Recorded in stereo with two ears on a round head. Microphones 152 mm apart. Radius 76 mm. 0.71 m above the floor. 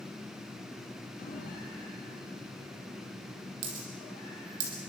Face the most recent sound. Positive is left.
turn(degrees=-85)